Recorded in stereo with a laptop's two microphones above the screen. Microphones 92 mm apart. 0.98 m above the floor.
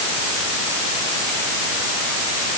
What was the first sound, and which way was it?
Only background noise.